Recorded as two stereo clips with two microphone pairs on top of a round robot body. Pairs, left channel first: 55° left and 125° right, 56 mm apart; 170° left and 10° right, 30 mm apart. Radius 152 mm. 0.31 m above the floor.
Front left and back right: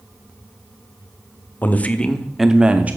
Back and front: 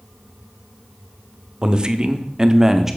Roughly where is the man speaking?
Ahead left.